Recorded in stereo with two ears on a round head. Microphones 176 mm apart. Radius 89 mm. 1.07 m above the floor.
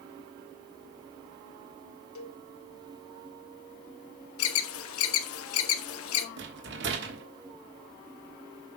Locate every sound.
2.1 s a cowbell: 75° left (ahead or behind), 1.3 m
4.4 s an alarm: 80° left, 0.9 m
6.4 s a rattle: 55° right (ahead or behind), 1.3 m